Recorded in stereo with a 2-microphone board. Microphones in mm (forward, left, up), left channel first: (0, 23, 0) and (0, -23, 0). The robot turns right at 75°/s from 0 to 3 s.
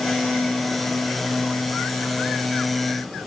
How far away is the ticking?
No ticking in this recording.